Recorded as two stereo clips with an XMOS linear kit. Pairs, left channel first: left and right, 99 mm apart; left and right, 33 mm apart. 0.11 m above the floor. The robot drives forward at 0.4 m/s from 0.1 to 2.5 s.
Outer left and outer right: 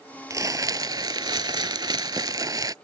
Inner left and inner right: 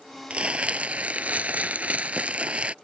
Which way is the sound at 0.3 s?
35° right (ahead or behind).